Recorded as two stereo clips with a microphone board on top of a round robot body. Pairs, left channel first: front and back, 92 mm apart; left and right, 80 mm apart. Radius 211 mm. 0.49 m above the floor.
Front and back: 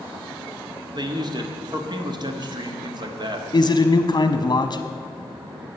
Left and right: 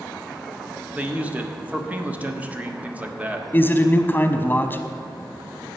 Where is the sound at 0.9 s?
160° right, 1.6 m.